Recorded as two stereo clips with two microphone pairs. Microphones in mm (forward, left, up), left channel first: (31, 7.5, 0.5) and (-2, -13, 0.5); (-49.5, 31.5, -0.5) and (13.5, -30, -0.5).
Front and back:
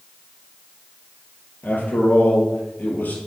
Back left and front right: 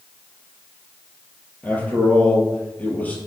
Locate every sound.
1.6 s a man speaking: 65° left, 2.5 m